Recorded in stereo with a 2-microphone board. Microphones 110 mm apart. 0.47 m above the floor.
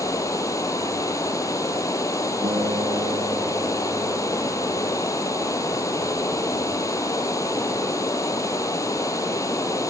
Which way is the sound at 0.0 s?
30° left (ahead or behind).